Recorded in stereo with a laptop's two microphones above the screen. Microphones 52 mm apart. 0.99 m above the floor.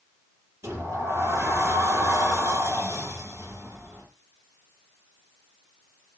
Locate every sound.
0.6 s a sliding door: 60° right (ahead or behind), 6.5 m